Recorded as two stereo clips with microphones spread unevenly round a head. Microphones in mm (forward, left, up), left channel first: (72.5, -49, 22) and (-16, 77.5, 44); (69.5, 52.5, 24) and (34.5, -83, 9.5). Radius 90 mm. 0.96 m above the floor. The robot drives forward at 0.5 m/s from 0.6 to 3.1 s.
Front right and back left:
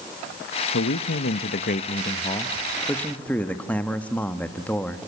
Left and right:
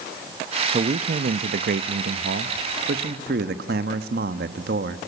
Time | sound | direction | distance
0.7 | a man speaking | 60° right | 0.8 m